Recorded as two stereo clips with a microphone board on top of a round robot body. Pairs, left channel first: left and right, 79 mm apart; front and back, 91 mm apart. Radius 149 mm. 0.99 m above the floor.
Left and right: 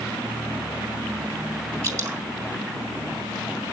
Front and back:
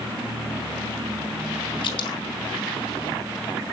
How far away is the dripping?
About 3 m.